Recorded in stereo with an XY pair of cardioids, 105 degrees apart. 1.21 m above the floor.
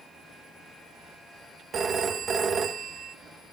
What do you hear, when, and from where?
1.7 s a phone ringing: 45° right, 1.3 m